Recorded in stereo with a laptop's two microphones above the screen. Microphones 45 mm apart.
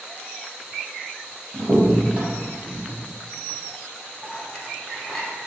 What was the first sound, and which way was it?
A crack, 20° right (ahead or behind).